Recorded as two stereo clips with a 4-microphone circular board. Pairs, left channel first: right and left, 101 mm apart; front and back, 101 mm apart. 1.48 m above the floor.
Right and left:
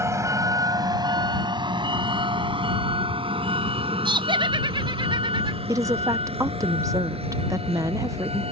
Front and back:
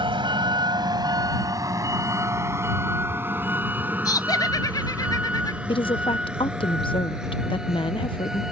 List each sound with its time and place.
0.0 s a vehicle: 150° left; by 8.5 s 95° left
4.0 s laughter: 55° left
5.7 s a woman speaking: 35° left